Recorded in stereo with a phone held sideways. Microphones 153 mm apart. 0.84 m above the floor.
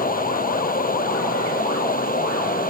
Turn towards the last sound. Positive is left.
turn(degrees=65)  # may be behind; listen again after turning